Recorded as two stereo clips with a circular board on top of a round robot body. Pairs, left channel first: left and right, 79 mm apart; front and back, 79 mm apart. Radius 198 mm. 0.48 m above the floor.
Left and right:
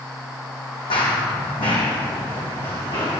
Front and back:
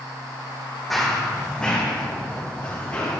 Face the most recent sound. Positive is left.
turn(degrees=65)